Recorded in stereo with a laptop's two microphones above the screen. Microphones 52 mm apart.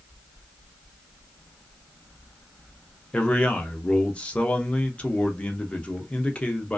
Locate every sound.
3.1 s a man speaking: 25° left (ahead or behind), 0.6 m